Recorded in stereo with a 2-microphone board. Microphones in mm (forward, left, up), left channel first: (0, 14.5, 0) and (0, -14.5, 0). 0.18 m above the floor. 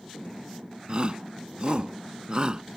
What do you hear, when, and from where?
0.9 s a shout: 40° right (ahead or behind); by 2.6 s 35° right (ahead or behind)